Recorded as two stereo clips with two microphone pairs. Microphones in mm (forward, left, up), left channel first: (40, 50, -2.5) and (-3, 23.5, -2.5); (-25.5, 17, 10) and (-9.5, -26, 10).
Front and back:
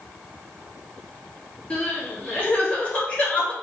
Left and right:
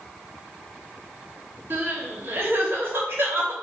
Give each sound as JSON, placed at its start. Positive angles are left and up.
{"t": 1.7, "sound": "crying", "azimuth_deg": -30, "distance_m": 2.0}